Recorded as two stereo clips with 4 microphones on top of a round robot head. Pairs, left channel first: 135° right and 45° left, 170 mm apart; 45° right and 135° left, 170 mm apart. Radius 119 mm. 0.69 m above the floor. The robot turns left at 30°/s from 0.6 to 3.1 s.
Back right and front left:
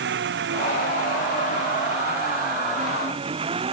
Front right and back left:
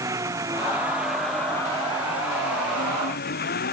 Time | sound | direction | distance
0.0 | an engine running | 60° left | ?